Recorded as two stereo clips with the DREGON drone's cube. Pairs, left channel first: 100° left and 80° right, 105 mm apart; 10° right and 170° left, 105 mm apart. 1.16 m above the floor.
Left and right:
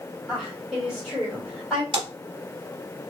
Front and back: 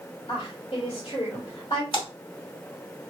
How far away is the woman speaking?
About 2 m.